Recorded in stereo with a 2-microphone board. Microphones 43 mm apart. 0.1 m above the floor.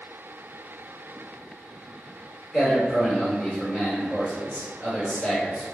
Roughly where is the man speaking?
Centre.